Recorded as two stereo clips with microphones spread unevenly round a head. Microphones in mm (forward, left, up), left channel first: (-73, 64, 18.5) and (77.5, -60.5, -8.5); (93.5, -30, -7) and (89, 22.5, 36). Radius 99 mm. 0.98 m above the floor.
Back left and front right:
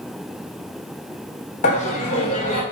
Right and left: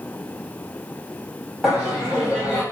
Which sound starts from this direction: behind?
Laughter, at 1.6 s.